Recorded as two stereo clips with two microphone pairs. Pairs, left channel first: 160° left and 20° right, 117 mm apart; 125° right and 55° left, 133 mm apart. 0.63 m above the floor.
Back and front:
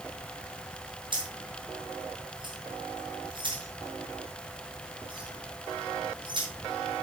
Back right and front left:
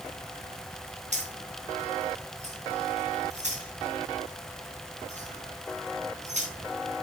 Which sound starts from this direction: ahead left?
Keys jangling, at 1.1 s.